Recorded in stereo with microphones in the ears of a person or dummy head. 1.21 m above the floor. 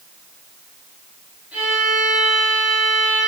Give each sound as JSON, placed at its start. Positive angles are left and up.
{"t": 1.5, "sound": "a violin", "side_deg": -10, "distance_m": 5.0}